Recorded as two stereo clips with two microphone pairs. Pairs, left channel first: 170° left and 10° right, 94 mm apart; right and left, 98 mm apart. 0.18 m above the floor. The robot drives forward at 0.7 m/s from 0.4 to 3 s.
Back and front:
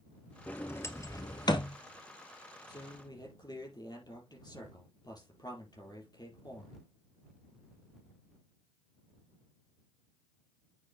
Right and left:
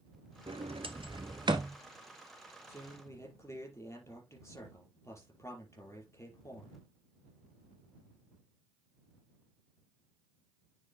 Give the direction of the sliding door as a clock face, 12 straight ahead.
9 o'clock.